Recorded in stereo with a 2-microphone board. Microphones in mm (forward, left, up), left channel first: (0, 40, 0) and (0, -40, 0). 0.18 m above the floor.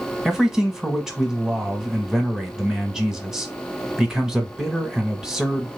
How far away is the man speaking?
About 1.0 m.